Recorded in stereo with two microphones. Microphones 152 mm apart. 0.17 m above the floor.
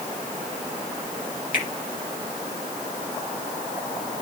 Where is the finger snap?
60° left (ahead or behind), 2 m.